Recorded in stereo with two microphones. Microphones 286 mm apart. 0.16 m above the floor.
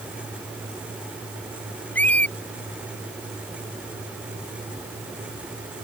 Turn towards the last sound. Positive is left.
turn(degrees=5)  # may be behind; listen again after turning